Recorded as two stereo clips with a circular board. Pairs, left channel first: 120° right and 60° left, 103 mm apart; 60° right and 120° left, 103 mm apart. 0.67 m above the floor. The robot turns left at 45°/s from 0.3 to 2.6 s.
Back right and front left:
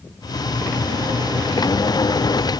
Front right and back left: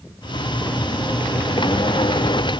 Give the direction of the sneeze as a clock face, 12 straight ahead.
No sneeze in this recording.